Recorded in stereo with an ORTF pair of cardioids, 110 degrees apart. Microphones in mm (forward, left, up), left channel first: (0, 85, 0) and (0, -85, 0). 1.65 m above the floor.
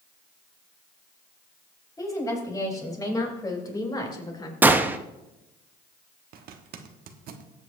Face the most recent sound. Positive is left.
turn(degrees=-60)